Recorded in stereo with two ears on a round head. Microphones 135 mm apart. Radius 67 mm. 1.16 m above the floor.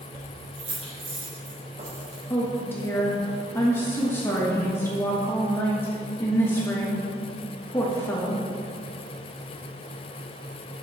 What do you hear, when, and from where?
0.1 s keys jangling: 35° right (ahead or behind), 3 m; by 2.2 s 55° right (ahead or behind), 4.5 m
2.3 s a woman speaking: 15° left (ahead or behind), 1.3 m